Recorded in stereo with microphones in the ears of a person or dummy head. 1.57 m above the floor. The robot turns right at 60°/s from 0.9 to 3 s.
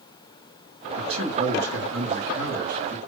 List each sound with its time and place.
1.0 s a man speaking: 160° right, 3.5 m; by 3.0 s 35° right, 3.5 m